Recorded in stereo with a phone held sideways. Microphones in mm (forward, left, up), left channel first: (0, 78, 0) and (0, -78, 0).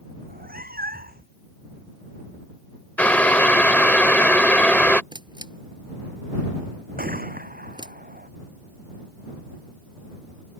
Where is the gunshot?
75° right (ahead or behind).